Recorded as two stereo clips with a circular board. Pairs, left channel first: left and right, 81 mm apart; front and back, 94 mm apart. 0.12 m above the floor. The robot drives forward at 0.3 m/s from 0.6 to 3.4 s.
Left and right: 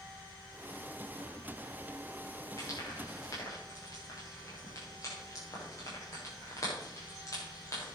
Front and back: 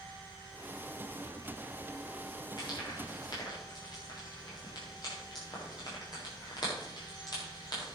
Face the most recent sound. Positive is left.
turn(degrees=40)